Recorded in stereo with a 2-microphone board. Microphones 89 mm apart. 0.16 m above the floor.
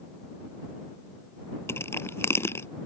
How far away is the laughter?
No laughter in this recording.